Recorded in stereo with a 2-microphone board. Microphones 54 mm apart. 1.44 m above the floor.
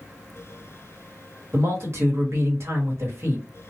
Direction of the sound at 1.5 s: 55° right (ahead or behind).